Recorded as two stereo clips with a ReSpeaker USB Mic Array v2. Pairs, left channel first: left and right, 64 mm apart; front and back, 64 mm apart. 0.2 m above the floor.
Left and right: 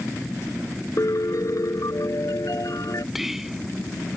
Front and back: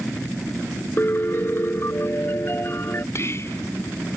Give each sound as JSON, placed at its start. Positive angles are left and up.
{"t": 1.0, "sound": "a piano", "azimuth_deg": 55}
{"t": 3.1, "sound": "whispering", "azimuth_deg": -10}